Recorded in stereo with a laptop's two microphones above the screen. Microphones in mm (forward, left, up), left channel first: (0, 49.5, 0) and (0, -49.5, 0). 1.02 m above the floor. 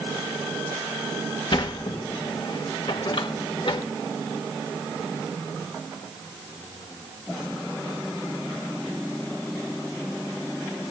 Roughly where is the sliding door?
Left.